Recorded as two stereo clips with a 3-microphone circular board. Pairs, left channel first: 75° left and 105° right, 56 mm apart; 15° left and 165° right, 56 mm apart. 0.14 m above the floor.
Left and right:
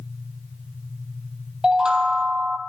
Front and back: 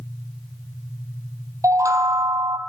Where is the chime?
Straight behind, 1.2 m.